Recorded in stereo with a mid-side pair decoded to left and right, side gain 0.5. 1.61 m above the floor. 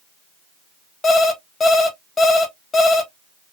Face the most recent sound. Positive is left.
turn(degrees=35)